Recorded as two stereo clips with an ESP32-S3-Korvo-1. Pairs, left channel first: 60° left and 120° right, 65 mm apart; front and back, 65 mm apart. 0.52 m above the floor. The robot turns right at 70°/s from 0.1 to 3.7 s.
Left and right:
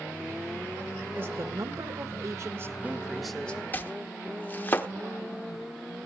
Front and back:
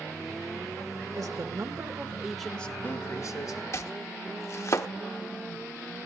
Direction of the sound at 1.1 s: 175° right.